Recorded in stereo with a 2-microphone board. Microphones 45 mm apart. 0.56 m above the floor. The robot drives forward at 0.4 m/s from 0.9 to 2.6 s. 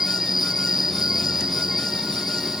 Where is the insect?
10° right (ahead or behind).